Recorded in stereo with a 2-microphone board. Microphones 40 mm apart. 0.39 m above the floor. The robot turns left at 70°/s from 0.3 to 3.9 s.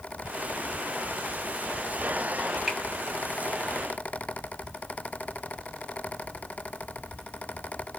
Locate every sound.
2.7 s a finger snap: 5° right (ahead or behind), 1.7 m; by 2.8 s centre (ahead or behind), 1.7 m